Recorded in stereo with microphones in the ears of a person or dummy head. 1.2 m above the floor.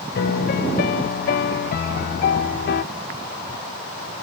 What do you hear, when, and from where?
0.1 s a piano: 50° left (ahead or behind), 0.5 m